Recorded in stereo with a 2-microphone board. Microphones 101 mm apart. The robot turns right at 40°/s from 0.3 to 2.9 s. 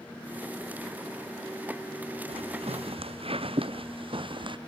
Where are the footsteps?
80° right; by 4.6 s 55° right (ahead or behind).